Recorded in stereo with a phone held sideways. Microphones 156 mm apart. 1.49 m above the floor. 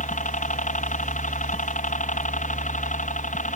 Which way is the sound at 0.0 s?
55° left (ahead or behind).